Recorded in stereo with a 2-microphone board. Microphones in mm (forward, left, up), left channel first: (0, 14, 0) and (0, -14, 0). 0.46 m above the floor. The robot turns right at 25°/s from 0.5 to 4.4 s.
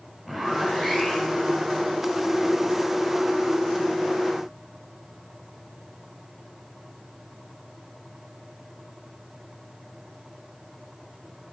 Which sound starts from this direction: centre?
A zipper, at 0.2 s.